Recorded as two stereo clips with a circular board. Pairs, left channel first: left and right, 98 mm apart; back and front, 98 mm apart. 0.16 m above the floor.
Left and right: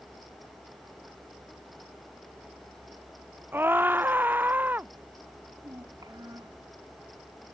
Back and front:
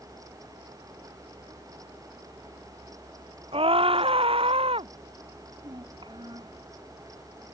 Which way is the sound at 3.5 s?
20° right.